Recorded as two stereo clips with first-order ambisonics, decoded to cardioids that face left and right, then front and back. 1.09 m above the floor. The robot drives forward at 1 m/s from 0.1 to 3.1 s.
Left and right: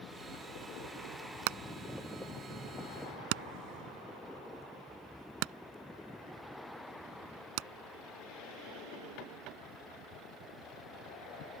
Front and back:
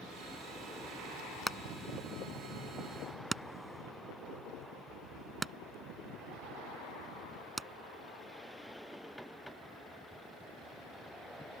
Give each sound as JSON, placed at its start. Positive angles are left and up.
{"t": 1.5, "sound": "hammering", "azimuth_deg": -85}